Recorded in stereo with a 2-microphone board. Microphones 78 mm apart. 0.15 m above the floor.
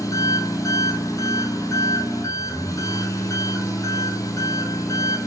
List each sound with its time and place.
0.0 s an engine running: 45° left (ahead or behind), 1.6 m